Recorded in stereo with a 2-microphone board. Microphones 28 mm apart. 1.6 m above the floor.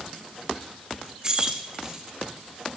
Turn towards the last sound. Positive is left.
turn(degrees=-25)  # may be behind; listen again after turning